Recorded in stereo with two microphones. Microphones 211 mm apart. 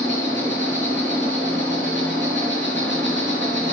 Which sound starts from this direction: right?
An insect, at 0.0 s.